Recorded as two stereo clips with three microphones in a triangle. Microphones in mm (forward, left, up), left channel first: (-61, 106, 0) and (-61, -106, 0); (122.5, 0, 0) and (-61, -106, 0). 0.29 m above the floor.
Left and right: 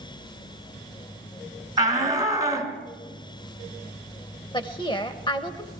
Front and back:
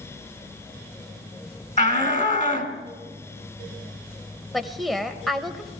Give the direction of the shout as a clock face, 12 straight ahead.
1 o'clock.